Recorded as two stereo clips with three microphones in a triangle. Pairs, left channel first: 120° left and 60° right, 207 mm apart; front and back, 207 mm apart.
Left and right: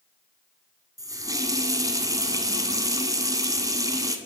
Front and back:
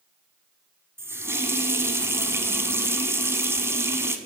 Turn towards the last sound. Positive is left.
turn(degrees=-115)